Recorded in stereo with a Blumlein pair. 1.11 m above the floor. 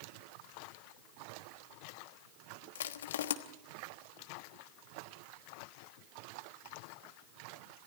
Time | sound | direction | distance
2.8 | crushing | 60° left | 1.2 m